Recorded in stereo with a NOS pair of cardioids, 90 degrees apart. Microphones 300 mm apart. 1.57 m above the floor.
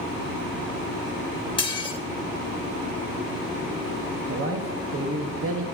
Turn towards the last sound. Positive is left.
turn(degrees=-45)